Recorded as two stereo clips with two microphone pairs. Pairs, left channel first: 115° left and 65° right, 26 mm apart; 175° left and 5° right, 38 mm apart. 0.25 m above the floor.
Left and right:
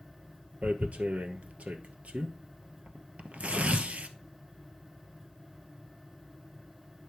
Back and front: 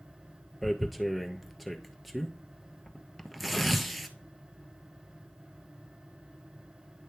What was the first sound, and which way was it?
Tearing paper, 100° right.